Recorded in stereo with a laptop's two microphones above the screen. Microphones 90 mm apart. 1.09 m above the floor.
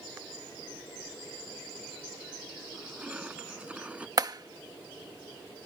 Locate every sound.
2.7 s crushing: 15° right (ahead or behind)
4.2 s a clap: 45° right (ahead or behind)